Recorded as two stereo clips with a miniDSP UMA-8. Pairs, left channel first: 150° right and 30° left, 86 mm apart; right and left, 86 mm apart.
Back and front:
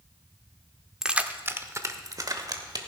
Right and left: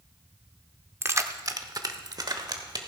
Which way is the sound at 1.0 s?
105° left.